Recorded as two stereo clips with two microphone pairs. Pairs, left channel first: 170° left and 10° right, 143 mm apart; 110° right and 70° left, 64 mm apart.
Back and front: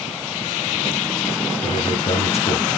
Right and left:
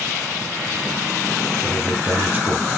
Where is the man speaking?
135° left, 3.5 m.